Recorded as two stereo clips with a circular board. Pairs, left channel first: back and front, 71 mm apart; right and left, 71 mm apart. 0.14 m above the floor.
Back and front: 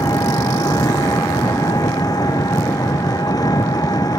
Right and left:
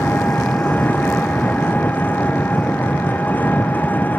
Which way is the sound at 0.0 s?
155° right.